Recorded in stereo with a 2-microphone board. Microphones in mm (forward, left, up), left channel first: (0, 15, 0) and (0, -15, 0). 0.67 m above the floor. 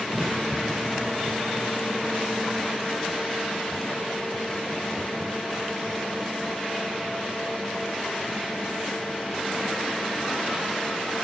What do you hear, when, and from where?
0.1 s a crack: 15° right (ahead or behind)